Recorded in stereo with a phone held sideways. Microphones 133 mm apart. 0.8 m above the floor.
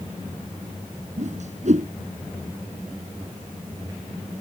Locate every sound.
1.2 s a whoosh: 65° right (ahead or behind)